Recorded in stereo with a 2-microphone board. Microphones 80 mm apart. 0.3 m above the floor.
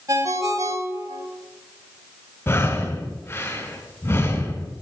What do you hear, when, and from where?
0.1 s a ringtone: 40° right (ahead or behind), 1.4 m
2.5 s breathing: 30° left (ahead or behind), 1.3 m